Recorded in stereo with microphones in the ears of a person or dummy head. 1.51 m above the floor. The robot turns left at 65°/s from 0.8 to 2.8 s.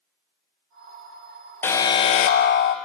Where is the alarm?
170° left, 0.7 m; by 2.8 s 95° left, 0.7 m.